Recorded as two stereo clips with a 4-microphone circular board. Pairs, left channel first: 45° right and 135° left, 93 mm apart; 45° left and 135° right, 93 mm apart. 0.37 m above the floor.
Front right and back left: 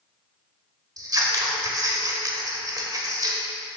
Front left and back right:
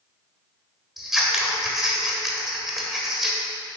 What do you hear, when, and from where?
1.0 s scissors: 140° left, 1.3 m